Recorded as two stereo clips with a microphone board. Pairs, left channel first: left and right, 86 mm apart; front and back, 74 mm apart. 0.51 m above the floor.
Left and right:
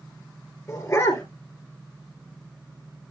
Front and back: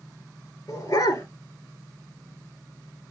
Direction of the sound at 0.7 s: 30° left.